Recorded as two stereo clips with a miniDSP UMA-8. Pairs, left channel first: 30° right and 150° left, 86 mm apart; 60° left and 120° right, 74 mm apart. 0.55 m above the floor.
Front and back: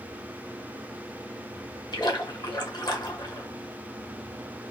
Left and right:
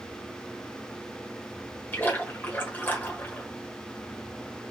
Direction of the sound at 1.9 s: Straight ahead.